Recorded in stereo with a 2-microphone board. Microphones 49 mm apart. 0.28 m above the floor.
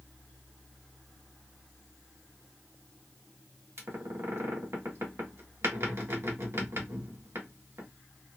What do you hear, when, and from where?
3.8 s a squeak: 60° right (ahead or behind), 1.4 m